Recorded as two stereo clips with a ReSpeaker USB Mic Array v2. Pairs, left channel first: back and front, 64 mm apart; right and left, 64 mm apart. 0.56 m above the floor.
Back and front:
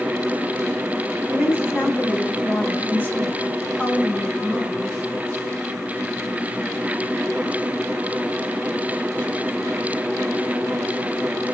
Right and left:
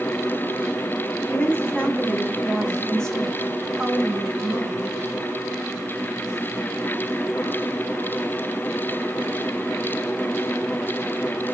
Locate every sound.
1.3 s a woman speaking: 135° right, 1.8 m; by 4.9 s 100° left, 1.3 m